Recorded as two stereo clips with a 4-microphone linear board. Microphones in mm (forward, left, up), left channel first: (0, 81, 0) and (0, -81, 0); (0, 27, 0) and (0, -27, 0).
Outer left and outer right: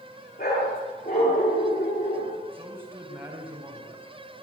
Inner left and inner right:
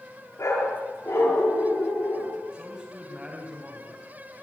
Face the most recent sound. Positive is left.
turn(degrees=-15)  # may be behind; listen again after turning